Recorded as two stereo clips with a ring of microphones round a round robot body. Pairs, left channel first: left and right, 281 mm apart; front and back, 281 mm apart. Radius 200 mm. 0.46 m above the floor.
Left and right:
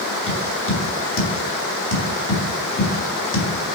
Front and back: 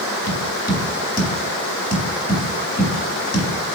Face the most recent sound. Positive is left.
turn(degrees=50)